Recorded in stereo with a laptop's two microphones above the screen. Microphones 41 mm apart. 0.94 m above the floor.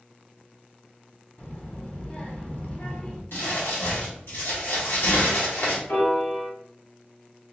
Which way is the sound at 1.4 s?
40° left (ahead or behind).